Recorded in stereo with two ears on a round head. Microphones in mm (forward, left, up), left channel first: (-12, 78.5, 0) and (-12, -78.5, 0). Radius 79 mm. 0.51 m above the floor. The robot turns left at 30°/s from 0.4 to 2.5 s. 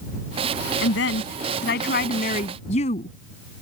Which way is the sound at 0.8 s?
90° left.